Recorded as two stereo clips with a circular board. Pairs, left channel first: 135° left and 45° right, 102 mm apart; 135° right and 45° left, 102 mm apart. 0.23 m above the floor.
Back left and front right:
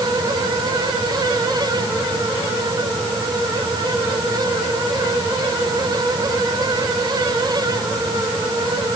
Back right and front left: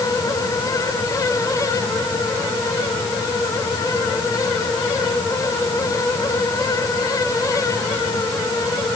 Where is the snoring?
No snoring in this recording.